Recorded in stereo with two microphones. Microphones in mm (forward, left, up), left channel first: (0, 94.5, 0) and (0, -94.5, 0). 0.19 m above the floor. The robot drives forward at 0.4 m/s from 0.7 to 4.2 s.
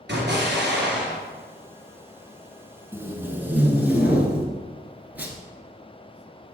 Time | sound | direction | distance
0.1 | an explosion | 65° right (ahead or behind) | 2.5 m
2.9 | tape being pulled | 10° right (ahead or behind) | 1.0 m